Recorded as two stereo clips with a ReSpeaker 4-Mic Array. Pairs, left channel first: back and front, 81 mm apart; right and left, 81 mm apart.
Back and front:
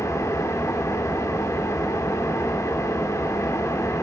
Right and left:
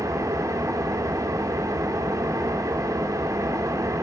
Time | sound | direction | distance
0.0 | an engine running | 135° left | 2 m